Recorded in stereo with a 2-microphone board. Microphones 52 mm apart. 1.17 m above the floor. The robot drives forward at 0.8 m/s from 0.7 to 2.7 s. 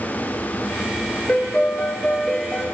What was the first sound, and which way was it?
A piano, 30° left (ahead or behind).